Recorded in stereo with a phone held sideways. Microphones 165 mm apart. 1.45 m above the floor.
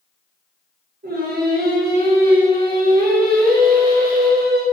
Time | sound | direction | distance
1.0 | singing | 70° right (ahead or behind) | 0.5 m